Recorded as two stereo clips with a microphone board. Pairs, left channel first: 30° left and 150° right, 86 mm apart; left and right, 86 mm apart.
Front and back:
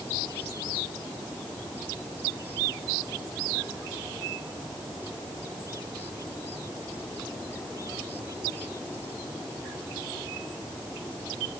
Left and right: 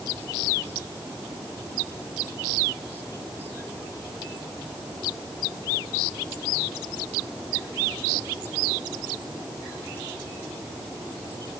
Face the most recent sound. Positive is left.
No sound to turn to.